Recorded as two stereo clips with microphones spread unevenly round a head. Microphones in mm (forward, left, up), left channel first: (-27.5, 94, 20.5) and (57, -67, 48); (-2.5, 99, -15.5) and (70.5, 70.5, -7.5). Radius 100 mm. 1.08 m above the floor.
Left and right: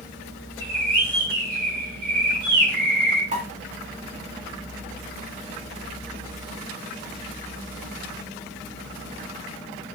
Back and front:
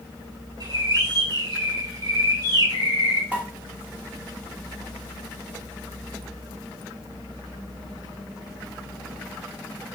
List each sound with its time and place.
0.6 s a bird: 25° right, 1.8 m
3.3 s a pop: 115° right, 1.3 m